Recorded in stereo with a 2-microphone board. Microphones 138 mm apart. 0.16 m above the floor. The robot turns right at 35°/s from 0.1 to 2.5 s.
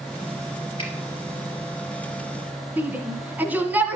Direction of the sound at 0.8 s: 40° left (ahead or behind).